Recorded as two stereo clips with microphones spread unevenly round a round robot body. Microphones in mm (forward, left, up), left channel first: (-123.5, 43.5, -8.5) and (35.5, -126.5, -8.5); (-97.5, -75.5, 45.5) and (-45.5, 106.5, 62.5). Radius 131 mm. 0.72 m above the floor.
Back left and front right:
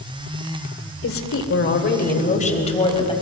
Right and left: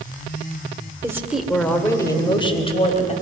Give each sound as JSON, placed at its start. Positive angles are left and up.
{"t": 1.0, "sound": "a woman speaking", "azimuth_deg": 150, "distance_m": 2.5}